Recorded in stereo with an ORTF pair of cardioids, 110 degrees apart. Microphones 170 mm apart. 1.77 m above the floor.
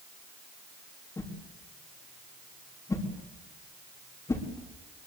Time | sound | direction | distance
1.2 | a whoosh | 20° left | 4 m